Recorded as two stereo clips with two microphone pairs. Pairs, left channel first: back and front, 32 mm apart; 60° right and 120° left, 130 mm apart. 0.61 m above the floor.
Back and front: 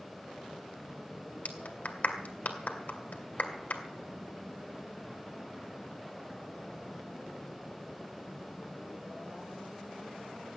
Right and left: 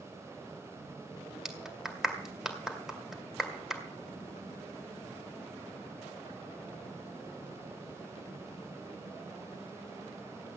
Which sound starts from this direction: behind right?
A clap, at 1.4 s.